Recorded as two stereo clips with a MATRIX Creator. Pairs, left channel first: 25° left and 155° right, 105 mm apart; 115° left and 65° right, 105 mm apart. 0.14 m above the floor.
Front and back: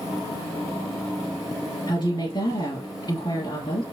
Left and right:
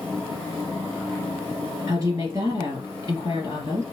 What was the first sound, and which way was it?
A woman speaking, 15° right.